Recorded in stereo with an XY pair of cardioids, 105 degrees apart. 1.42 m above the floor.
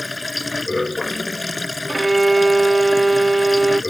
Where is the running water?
20° left.